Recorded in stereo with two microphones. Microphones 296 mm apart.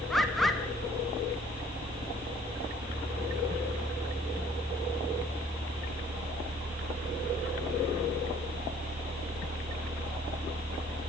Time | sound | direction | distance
0.1 | a bird | centre (ahead or behind) | 1.4 m